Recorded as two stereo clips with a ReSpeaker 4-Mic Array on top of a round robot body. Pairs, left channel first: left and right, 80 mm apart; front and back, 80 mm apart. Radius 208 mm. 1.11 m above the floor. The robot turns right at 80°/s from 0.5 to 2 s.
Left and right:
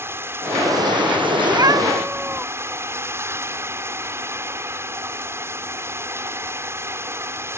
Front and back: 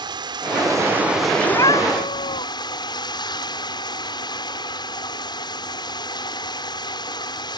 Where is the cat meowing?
60° right; by 2.5 s 15° right.